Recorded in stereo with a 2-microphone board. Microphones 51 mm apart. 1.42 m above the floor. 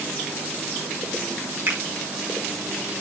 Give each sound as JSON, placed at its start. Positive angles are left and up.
{"t": 1.7, "sound": "a finger snap", "side_deg": -50, "distance_m": 6.0}